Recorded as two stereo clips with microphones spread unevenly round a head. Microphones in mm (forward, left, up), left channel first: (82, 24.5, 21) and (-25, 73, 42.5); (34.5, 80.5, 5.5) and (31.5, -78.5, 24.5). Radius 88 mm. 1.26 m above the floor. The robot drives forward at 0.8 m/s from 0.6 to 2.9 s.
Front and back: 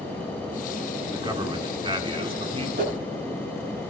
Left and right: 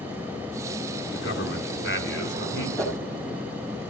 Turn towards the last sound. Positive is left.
turn(degrees=175)